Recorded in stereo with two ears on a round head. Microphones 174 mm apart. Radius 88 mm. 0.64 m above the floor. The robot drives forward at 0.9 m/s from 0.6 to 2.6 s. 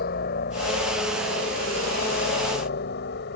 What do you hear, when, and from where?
0.0 s a helicopter: 50° left (ahead or behind); by 3.4 s 55° left (ahead or behind)